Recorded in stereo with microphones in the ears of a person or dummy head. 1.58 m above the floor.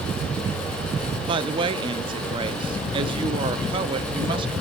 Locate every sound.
1.3 s a woman speaking: 30° right (ahead or behind), 0.7 m